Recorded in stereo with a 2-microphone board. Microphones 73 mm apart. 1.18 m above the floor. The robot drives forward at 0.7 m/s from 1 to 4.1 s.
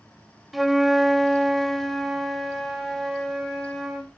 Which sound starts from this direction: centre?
A flute, at 0.5 s.